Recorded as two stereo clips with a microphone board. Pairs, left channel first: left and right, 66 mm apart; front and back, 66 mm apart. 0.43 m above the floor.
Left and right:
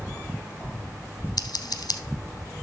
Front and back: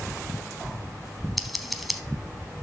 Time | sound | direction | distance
1.4 | scissors | 90° left | 0.8 m